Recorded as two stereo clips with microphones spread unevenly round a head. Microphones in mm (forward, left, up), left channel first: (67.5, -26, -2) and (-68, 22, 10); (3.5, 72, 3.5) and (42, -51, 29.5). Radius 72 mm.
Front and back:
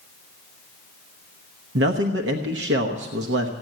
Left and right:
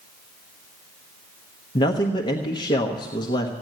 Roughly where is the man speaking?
Behind.